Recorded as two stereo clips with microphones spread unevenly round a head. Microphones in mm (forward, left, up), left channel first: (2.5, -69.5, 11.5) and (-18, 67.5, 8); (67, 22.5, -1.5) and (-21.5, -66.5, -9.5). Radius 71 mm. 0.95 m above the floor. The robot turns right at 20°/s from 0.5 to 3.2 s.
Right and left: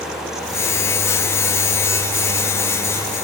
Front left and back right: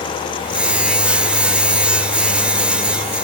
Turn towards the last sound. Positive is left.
No sound to turn to.